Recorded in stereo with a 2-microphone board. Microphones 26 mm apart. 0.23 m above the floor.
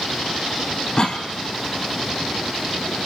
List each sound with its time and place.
1.0 s a cough: 35° left (ahead or behind), 1.2 m